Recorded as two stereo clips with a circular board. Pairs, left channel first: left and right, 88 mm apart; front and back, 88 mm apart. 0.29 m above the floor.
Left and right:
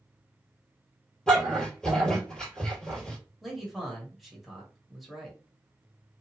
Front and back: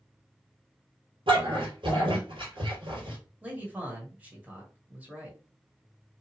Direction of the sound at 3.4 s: 175° right.